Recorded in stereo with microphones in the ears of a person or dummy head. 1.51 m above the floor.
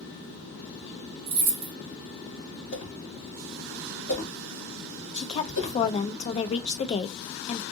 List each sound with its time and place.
1.3 s keys jangling: 55° right (ahead or behind), 0.8 m
2.7 s a whoosh: 40° left (ahead or behind), 2 m
5.1 s a woman speaking: 35° left (ahead or behind), 0.6 m